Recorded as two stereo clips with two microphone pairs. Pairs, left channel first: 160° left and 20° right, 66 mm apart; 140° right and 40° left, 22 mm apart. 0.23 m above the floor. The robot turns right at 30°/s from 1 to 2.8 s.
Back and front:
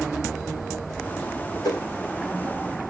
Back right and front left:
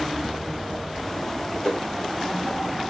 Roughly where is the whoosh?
Behind.